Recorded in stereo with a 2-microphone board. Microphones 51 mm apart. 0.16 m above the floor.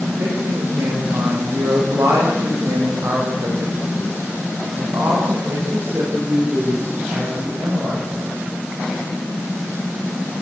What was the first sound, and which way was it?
A woman speaking, 80° right.